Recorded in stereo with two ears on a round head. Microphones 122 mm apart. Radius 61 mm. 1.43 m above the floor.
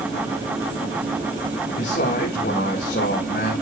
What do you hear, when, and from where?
1.7 s a man speaking: 60° left (ahead or behind), 2 m; by 3.5 s 85° left, 2.5 m